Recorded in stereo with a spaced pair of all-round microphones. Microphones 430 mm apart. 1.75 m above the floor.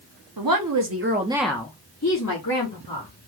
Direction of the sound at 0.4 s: 55° right (ahead or behind).